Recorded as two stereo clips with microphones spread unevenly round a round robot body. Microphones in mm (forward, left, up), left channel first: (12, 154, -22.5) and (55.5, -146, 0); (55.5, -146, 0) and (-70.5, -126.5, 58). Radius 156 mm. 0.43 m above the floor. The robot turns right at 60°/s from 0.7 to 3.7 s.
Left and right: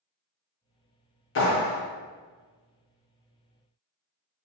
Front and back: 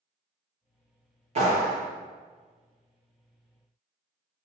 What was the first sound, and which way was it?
A clap, 115° left.